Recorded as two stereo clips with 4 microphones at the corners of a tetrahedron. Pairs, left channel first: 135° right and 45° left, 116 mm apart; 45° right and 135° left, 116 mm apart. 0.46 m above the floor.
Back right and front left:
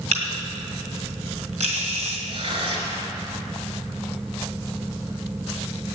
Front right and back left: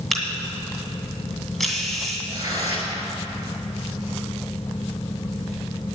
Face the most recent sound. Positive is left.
turn(degrees=75)